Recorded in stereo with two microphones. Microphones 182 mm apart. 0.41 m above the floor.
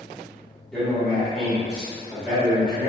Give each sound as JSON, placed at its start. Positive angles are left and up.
{"t": 0.7, "sound": "a man speaking", "side_deg": 5, "distance_m": 1.2}